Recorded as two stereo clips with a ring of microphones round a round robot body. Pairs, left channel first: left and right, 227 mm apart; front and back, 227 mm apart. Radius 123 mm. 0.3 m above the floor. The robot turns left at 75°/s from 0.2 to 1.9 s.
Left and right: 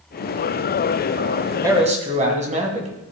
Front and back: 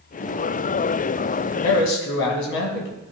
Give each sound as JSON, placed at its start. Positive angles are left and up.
{"t": 1.6, "sound": "a man speaking", "azimuth_deg": -15, "distance_m": 1.9}